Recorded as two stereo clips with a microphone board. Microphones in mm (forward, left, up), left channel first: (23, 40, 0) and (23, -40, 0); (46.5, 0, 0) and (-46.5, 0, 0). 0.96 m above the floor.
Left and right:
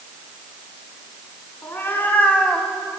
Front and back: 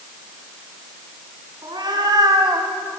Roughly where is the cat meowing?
Behind left.